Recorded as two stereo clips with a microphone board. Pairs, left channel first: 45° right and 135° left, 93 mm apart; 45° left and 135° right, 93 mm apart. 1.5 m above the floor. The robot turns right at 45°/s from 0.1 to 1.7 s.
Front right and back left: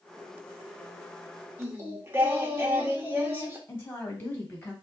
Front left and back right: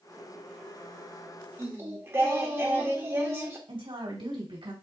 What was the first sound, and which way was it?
Singing, straight behind.